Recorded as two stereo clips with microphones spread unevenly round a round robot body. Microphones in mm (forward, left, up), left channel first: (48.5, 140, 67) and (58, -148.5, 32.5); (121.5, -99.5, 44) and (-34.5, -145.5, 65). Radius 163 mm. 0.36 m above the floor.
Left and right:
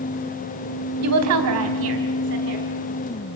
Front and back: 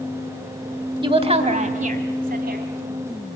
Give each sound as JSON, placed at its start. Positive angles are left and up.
{"t": 1.0, "sound": "a woman speaking", "azimuth_deg": -105, "distance_m": 3.0}